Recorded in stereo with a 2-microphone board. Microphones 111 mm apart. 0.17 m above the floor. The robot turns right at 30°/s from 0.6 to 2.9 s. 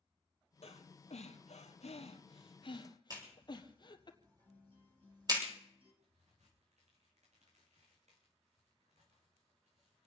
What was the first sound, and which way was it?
Breathing, 65° left (ahead or behind).